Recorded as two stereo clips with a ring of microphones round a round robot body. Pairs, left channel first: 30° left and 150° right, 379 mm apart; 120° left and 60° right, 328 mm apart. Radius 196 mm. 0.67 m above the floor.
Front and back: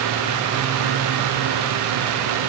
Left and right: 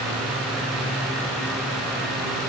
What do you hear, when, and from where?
Only background noise.